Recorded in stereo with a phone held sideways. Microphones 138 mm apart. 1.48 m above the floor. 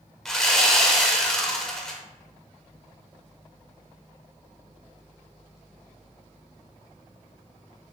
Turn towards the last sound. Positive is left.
turn(degrees=5)  # may be behind; listen again after turning